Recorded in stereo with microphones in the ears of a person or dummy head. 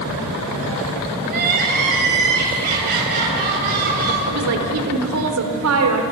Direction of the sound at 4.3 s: 80° right.